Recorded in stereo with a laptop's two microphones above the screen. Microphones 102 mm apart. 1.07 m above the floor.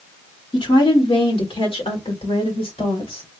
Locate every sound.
0.5 s a woman speaking: 55° left (ahead or behind), 1.3 m; by 3.3 s 70° left (ahead or behind), 3 m